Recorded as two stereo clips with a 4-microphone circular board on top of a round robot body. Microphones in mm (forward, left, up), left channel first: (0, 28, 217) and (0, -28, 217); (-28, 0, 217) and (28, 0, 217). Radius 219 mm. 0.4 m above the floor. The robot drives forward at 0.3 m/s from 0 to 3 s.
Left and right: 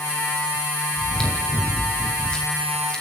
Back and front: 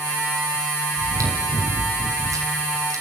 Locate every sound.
1.0 s chewing: 15° left, 5 m